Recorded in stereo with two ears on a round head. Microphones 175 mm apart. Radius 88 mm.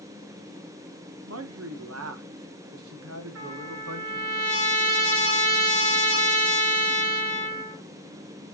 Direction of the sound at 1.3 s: 85° right.